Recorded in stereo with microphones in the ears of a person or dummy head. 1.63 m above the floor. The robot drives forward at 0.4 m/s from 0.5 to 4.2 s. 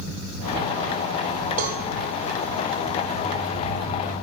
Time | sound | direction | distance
1.6 | a cowbell | 40° right (ahead or behind) | 2 m